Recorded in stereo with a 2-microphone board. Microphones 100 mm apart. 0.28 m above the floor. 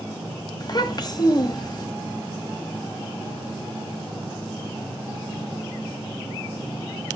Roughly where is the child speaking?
Left.